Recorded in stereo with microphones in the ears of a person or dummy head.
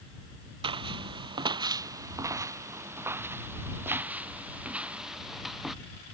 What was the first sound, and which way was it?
Footsteps, 25° right (ahead or behind).